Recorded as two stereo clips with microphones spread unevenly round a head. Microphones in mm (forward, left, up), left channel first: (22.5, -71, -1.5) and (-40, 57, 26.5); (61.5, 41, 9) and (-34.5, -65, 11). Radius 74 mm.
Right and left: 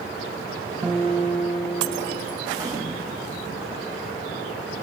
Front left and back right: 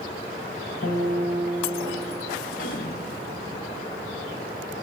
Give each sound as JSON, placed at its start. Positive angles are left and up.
{"t": 0.8, "sound": "a guitar", "azimuth_deg": 45, "distance_m": 2.5}
{"t": 2.5, "sound": "a gunshot", "azimuth_deg": 60, "distance_m": 1.1}